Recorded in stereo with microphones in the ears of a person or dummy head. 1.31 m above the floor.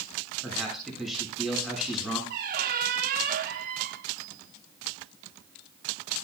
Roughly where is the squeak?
Right.